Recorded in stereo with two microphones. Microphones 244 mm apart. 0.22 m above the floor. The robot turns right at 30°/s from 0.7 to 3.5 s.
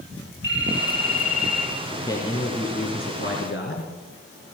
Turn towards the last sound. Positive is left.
turn(degrees=60)